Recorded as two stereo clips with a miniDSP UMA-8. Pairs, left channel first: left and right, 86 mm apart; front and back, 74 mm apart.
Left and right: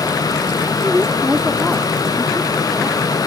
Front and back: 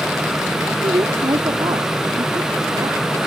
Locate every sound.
0.8 s a woman speaking: 165° right; by 3.0 s 170° left